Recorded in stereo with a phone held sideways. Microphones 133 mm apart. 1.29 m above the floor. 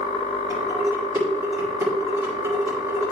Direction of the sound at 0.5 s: 20° right (ahead or behind).